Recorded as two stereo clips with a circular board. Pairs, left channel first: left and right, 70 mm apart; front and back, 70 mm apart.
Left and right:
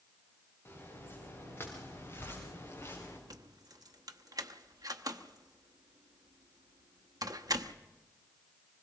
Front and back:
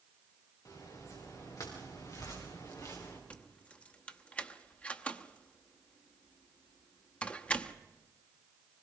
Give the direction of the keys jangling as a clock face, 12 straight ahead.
2 o'clock.